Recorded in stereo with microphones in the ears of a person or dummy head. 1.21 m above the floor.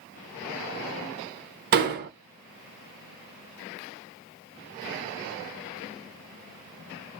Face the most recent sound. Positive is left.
turn(degrees=-50)  # may be behind; listen again after turning